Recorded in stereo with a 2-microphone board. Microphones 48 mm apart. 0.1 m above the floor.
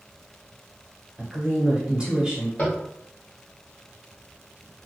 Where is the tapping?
35° left (ahead or behind), 1.6 m.